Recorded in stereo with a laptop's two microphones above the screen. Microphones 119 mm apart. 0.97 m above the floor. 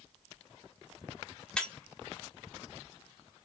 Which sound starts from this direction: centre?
Breaking glass, at 1.6 s.